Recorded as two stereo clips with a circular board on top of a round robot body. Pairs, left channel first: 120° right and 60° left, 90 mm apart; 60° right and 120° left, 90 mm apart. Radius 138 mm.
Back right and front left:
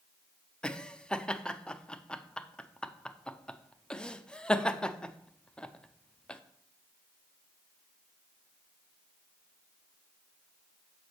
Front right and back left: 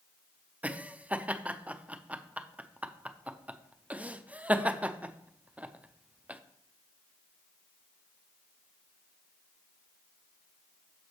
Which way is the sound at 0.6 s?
175° left.